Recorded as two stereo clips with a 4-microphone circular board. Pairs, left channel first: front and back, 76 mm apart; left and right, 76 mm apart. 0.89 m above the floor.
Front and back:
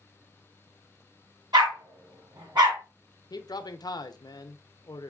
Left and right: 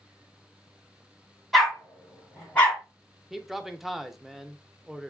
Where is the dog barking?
Straight behind, 2.0 m; by 2.8 s 160° left, 2.0 m.